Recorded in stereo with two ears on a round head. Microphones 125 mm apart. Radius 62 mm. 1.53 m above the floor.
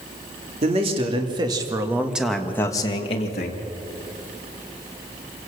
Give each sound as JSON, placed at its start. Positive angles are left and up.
{"t": 0.6, "sound": "a man speaking", "side_deg": -45, "distance_m": 3.0}